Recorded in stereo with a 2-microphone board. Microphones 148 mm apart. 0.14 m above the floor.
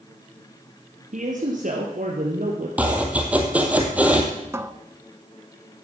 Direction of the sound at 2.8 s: 10° right (ahead or behind).